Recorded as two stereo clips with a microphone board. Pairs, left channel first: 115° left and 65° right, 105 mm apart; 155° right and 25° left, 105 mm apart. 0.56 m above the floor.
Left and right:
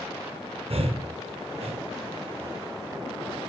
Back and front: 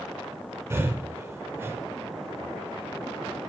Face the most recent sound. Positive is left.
turn(degrees=-45)